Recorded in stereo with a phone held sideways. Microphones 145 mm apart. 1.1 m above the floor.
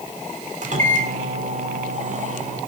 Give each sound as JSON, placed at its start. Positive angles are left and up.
{"t": 0.6, "sound": "a microwave", "side_deg": -60, "distance_m": 3.0}